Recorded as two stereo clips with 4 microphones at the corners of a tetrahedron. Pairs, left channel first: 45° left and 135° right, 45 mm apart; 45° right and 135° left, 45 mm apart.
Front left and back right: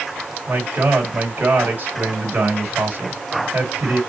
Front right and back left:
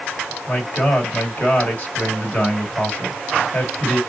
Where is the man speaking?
90° right, 1.6 m.